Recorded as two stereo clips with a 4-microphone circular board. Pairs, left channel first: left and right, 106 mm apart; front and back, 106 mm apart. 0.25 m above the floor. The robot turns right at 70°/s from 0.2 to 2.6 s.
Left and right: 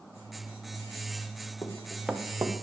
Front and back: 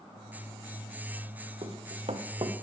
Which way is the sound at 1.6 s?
150° left.